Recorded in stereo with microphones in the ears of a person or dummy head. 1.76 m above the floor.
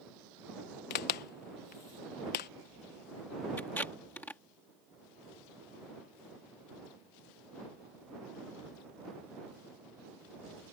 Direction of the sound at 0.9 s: 40° left (ahead or behind).